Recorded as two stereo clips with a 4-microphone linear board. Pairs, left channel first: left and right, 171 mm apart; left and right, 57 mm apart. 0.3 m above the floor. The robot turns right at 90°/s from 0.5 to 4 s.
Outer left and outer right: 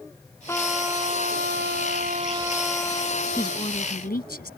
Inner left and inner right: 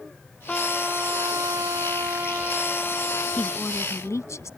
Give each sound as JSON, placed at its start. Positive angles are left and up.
{"t": 0.5, "sound": "a trumpet", "azimuth_deg": 165}
{"t": 3.4, "sound": "a woman speaking", "azimuth_deg": 20}